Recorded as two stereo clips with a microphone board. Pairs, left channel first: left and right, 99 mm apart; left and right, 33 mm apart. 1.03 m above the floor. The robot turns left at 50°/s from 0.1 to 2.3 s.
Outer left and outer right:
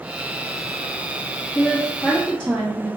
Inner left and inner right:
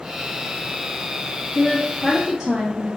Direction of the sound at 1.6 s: 20° left.